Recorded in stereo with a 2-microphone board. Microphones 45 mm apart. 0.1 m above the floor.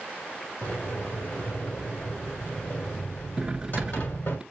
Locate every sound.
0.6 s a sliding door: 55° left (ahead or behind), 2.5 m
3.4 s cutlery clinking: 15° right (ahead or behind), 0.7 m